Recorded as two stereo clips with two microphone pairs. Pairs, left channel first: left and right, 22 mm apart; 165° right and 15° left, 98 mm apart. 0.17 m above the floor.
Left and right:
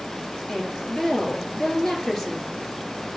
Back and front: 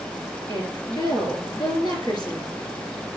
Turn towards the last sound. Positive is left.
turn(degrees=160)